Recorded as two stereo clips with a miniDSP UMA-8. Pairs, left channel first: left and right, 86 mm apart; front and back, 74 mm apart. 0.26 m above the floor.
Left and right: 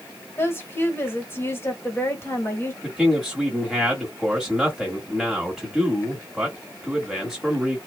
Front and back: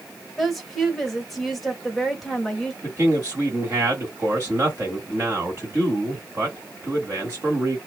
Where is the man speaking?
Straight behind, 1.4 m.